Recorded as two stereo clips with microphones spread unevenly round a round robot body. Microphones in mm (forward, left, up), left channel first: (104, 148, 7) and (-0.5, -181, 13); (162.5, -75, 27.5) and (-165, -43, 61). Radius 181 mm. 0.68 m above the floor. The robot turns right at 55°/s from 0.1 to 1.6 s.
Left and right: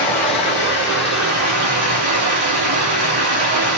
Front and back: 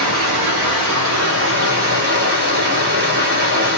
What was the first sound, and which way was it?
Running water, 150° left.